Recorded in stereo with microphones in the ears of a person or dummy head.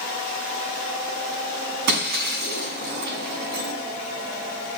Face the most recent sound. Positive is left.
turn(degrees=-60)  # may be behind; listen again after turning